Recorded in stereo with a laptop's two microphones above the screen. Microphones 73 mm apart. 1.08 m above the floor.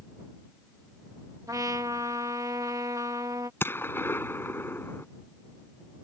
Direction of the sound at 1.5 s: 50° right (ahead or behind).